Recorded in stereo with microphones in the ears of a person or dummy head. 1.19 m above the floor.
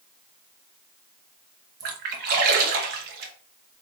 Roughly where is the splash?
Right.